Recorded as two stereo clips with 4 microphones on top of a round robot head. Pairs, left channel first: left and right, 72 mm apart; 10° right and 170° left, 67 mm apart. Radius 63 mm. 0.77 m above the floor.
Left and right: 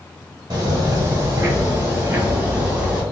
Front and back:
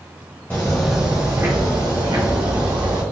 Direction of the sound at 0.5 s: 70° right.